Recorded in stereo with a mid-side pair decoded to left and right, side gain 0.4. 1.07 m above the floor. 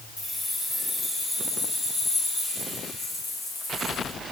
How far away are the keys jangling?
About 5 m.